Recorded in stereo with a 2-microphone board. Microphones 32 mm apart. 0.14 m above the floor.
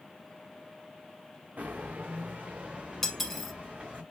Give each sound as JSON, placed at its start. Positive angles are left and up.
{"t": 1.6, "sound": "footsteps", "side_deg": -55, "distance_m": 0.6}
{"t": 3.0, "sound": "cutlery clinking", "side_deg": 10, "distance_m": 0.7}